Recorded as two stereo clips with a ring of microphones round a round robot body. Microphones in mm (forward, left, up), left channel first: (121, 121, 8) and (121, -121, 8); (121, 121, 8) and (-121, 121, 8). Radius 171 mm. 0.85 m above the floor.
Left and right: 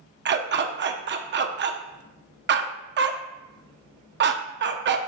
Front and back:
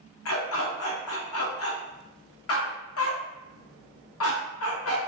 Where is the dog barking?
45° right, 0.6 m.